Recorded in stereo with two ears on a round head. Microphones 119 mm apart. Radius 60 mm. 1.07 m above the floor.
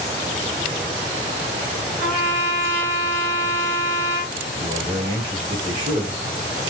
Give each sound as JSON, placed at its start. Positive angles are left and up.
{"t": 2.0, "sound": "a trumpet", "side_deg": -55, "distance_m": 3.5}
{"t": 4.6, "sound": "a man speaking", "side_deg": -40, "distance_m": 2.0}